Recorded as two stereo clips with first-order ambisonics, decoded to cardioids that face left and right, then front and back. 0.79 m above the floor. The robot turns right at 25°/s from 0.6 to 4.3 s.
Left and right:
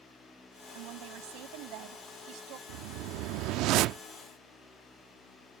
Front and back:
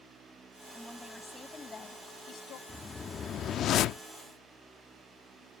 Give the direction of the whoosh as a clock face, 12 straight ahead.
3 o'clock.